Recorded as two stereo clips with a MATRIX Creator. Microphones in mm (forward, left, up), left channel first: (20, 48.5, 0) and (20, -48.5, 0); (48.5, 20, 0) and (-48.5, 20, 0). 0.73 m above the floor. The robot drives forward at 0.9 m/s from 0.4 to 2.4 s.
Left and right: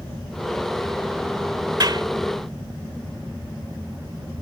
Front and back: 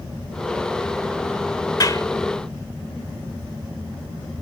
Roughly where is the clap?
Ahead right.